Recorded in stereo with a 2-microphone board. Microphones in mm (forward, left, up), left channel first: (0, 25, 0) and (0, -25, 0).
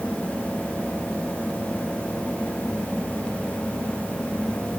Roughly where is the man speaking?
No man speaking in this recording.